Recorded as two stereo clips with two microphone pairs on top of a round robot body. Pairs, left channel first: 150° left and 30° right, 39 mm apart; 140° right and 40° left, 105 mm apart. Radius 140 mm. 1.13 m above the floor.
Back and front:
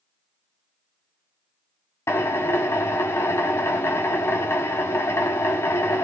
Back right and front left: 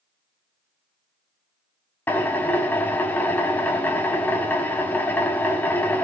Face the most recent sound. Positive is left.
turn(degrees=150)